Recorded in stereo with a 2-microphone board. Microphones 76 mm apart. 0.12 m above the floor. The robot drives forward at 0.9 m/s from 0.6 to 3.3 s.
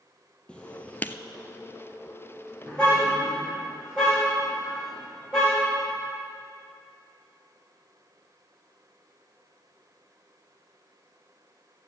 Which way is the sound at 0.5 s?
15° left (ahead or behind).